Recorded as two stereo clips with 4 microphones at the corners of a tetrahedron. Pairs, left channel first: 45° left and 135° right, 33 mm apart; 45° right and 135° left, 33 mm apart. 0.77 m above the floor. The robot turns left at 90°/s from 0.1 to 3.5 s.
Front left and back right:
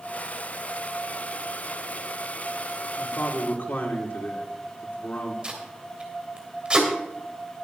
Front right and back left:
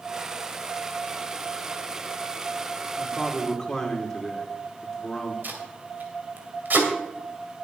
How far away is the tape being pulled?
About 2.5 m.